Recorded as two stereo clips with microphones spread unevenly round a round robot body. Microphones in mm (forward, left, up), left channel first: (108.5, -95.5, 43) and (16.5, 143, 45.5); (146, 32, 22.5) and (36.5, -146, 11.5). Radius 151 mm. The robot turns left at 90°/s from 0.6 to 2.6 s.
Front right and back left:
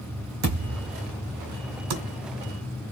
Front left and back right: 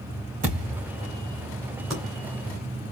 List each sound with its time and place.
0.4 s a thud: 170° left, 3 m; by 0.9 s 140° left, 3 m
1.9 s typing on a keyboard: 150° left, 1.9 m; by 2.0 s 140° left, 1.9 m